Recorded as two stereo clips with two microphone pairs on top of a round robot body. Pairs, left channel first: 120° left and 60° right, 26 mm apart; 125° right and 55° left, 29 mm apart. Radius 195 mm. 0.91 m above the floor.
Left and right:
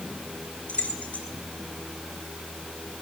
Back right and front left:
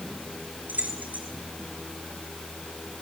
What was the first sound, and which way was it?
Keys jangling, 80° left.